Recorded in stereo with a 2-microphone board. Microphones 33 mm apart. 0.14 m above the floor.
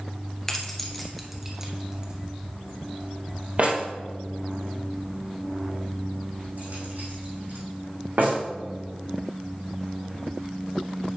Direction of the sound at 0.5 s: 15° left (ahead or behind).